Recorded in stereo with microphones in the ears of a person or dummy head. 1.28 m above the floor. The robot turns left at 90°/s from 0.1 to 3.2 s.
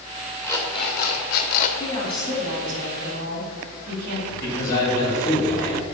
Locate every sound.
0.4 s an alarm clock: 175° left, 0.8 m; by 1.7 s 60° left, 0.8 m
1.8 s a woman speaking: 30° left, 3 m; by 4.2 s 100° right, 3 m
4.3 s a man speaking: 45° left (ahead or behind), 3 m